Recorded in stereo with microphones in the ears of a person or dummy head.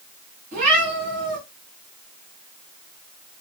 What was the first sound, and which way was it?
A cat meowing, 40° right (ahead or behind).